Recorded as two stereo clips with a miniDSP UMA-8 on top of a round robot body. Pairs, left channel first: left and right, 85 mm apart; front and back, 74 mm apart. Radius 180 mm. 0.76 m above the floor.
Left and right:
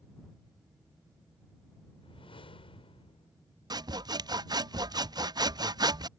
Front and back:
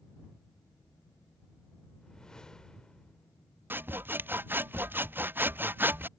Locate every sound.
2.0 s a whoosh: 80° left
3.7 s sawing: 120° right